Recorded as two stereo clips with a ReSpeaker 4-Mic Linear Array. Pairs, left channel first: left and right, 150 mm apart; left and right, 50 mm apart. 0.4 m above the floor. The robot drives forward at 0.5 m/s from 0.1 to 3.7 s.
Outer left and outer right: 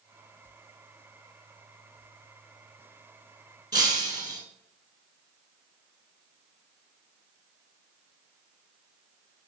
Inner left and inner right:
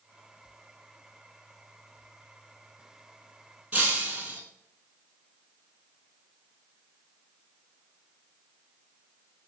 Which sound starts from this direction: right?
Breaking glass, at 3.7 s.